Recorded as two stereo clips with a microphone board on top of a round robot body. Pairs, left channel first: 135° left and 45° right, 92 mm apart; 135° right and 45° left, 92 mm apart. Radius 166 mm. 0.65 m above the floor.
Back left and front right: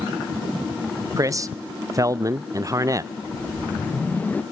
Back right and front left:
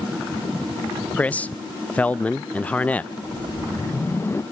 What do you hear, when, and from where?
1.2 s a man speaking: 70° right, 0.6 m
3.2 s a whoosh: 170° right, 1.1 m